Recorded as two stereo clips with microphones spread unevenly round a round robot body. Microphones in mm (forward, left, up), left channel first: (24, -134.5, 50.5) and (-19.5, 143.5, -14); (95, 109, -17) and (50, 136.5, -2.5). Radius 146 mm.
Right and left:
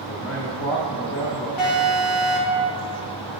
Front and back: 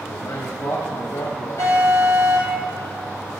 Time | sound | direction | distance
0.1 | a man speaking | 25° right | 1.6 m
1.6 | an alarm | 55° right | 3 m